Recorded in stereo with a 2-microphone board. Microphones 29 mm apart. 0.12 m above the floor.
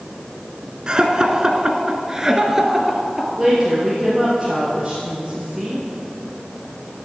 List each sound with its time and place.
0.9 s laughter: 25° right (ahead or behind), 1.2 m; by 3.3 s 10° right (ahead or behind), 1.9 m
3.4 s a woman speaking: 10° right (ahead or behind), 3 m